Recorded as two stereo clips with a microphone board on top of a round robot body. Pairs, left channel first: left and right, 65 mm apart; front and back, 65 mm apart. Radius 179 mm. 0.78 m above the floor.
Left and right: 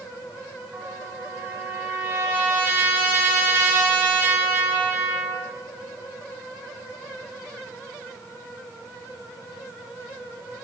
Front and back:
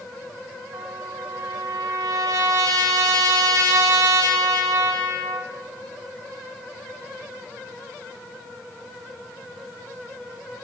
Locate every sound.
0.7 s a trumpet: 150° right, 2 m